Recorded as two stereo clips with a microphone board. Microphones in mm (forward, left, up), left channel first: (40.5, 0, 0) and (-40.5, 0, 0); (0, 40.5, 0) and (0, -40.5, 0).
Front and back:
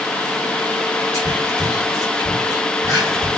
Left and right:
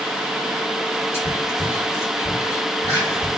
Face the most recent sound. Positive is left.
turn(degrees=35)